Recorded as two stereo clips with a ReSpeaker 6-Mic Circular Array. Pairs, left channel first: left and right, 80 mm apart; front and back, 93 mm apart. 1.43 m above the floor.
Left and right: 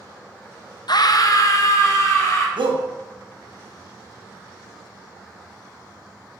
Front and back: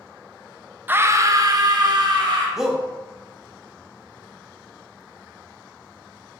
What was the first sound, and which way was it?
A scream, 110° left.